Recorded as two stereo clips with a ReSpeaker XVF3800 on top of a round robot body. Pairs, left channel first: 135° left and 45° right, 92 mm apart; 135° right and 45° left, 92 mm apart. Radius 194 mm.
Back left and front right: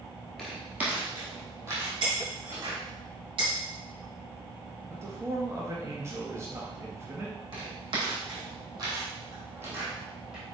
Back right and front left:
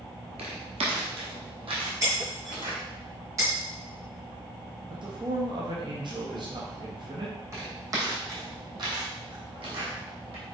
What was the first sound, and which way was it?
Footsteps, 45° left.